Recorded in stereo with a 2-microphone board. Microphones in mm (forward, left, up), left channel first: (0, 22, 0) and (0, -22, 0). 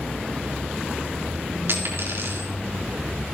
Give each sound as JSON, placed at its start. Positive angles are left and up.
{"t": 1.7, "sound": "a dropped coin", "side_deg": -60, "distance_m": 3.5}